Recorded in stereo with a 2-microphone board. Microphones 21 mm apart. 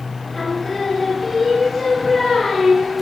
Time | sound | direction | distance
0.3 | singing | 5° left (ahead or behind) | 2.5 m